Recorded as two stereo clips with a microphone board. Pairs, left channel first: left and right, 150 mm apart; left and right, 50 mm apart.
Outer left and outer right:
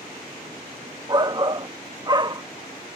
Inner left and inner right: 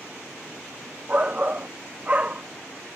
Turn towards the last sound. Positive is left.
turn(degrees=-30)  # may be behind; listen again after turning